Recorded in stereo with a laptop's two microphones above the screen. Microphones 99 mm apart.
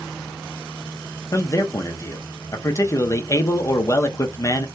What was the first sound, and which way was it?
A man speaking, 35° left (ahead or behind).